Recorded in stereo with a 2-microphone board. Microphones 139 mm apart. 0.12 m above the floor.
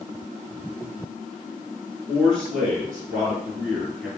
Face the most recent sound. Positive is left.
turn(degrees=5)  # may be behind; listen again after turning